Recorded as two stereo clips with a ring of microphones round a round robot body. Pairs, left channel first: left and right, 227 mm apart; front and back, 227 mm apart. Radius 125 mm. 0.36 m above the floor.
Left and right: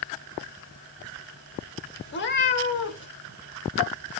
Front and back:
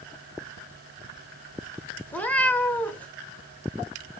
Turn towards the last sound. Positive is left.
turn(degrees=80)